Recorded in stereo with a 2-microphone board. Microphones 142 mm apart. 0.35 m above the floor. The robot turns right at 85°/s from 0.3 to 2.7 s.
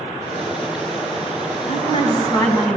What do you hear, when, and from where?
1.7 s a woman speaking: 90° left, 2.5 m; by 2.8 s straight behind, 2.5 m